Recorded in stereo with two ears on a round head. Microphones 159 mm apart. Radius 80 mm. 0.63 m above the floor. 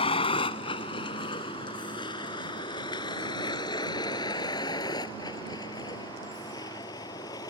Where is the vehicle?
30° left (ahead or behind); by 7.5 s 20° left (ahead or behind).